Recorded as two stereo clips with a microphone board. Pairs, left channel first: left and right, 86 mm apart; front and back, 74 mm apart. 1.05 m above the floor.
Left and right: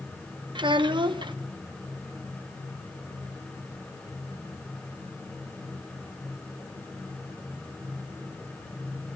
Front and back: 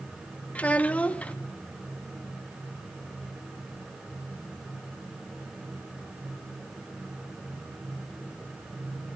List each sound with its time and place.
0.6 s a child speaking: 70° right, 0.7 m